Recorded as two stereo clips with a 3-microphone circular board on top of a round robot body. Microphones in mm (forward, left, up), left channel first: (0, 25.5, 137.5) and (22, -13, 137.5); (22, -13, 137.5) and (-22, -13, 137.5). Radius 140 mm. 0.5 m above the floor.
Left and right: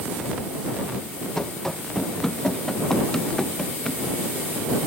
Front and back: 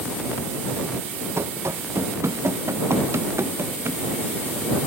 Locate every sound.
1.4 s running footsteps: 155° right; by 4.0 s 160° right